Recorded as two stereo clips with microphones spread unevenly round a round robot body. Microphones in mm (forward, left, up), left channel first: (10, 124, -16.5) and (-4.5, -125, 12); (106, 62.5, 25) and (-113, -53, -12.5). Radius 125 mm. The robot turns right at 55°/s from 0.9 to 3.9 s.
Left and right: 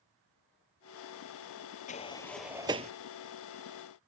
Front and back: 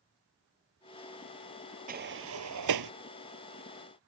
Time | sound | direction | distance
1.9 | a sliding door | 150° left | ?